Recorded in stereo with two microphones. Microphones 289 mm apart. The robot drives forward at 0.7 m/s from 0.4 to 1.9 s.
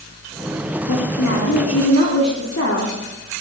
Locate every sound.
0.9 s a woman speaking: 80° left, 1.9 m; by 3.4 s 65° left (ahead or behind), 2 m